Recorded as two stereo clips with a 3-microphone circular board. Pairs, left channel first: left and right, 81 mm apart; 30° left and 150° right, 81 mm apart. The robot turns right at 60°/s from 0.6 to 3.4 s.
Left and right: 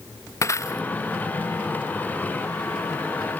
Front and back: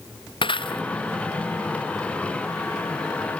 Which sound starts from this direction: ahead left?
Breaking glass, at 0.4 s.